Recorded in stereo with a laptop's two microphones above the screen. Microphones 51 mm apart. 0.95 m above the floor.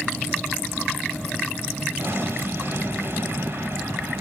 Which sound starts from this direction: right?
An explosion, at 2.0 s.